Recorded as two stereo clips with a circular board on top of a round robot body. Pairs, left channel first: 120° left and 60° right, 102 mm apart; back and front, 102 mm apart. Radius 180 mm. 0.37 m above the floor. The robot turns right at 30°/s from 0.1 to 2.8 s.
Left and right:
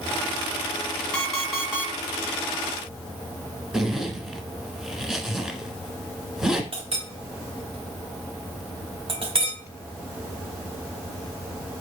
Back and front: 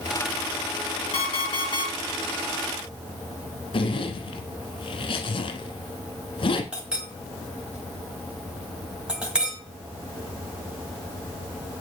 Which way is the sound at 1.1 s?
160° right.